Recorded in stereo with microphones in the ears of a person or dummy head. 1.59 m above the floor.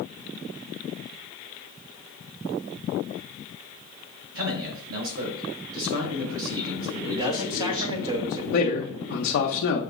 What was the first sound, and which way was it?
A man speaking, 80° right.